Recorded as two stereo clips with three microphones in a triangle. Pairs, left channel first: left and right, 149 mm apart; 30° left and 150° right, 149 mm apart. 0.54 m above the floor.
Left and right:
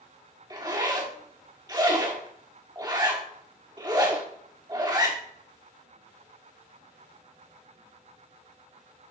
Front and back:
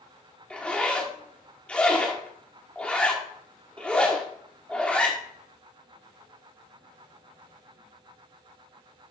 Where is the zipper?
50° right, 1.6 m.